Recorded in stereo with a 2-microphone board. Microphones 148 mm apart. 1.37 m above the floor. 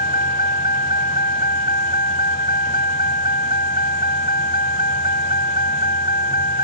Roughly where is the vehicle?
Left.